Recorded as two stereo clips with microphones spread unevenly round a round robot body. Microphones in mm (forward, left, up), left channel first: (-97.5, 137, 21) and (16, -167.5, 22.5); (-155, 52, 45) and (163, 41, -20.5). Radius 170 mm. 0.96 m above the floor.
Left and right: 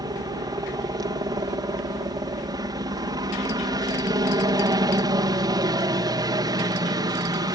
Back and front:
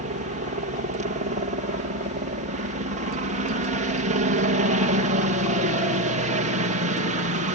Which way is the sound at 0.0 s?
Straight ahead.